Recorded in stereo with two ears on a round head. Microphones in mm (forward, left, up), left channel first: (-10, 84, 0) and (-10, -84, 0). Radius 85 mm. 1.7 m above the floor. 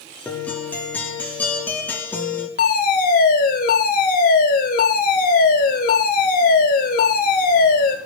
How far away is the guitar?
About 3.5 m.